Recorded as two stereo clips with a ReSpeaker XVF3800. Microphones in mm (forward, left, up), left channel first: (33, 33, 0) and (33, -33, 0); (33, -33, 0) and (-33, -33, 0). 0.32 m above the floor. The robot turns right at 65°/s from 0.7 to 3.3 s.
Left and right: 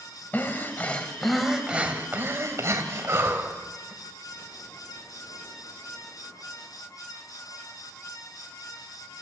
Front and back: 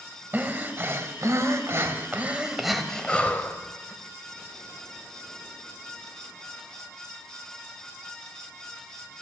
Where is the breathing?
140° left, 1.6 m; by 3.9 s 55° right, 1.6 m.